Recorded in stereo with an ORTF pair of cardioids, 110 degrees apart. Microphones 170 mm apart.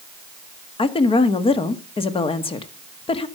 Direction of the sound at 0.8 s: 35° left.